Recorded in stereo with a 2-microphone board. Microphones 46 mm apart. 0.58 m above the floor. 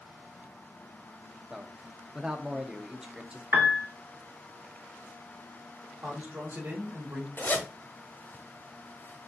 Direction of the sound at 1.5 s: 15° right (ahead or behind).